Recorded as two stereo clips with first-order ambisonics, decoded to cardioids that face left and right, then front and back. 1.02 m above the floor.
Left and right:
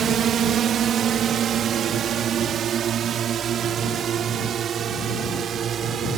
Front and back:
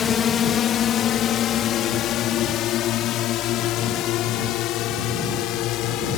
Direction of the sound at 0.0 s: 50° right.